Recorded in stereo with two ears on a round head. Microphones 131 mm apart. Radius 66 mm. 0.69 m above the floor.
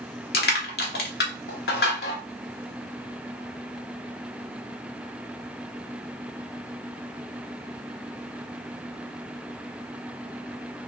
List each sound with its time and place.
0.3 s crushing: 75° left (ahead or behind), 0.9 m